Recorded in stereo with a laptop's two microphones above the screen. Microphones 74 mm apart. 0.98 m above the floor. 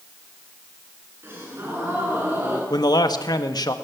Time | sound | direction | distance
1.2 | a gasp | 30° right (ahead or behind) | 8 m
2.7 | a man speaking | 65° left (ahead or behind) | 1.5 m